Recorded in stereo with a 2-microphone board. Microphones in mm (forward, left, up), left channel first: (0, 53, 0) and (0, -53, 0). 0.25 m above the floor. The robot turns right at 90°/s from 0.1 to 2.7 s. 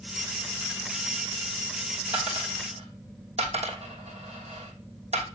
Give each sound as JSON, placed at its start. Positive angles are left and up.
{"t": 2.1, "sound": "a dropped coin", "side_deg": -55, "distance_m": 2.5}